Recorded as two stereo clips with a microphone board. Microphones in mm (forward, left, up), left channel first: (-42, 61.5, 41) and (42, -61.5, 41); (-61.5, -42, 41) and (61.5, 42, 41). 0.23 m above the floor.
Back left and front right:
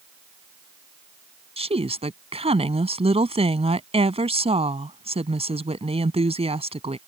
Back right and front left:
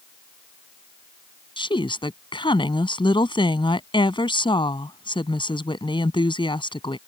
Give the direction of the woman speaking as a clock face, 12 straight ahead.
3 o'clock.